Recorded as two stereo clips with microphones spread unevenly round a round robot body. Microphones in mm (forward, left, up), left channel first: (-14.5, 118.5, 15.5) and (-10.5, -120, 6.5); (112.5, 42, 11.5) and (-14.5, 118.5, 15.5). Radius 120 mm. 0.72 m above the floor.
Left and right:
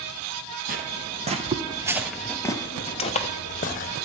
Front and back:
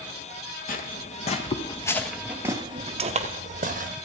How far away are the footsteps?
About 1.2 m.